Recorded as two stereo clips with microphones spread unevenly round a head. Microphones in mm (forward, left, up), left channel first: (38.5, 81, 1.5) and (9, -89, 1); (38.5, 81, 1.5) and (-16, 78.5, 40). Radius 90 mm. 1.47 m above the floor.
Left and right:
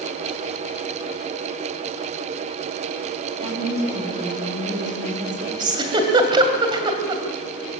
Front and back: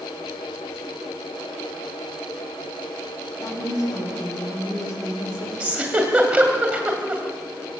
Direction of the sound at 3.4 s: 45° right.